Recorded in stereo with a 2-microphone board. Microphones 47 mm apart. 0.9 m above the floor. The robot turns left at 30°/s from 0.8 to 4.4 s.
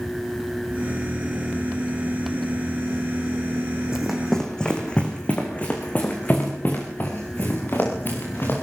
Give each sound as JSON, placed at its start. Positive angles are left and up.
{"t": 3.9, "sound": "running footsteps", "side_deg": -10, "distance_m": 3.5}